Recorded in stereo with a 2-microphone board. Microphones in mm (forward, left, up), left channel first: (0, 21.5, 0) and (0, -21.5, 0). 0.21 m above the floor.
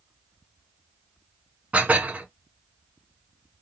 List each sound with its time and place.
1.7 s dishes clattering: 35° right (ahead or behind), 1.4 m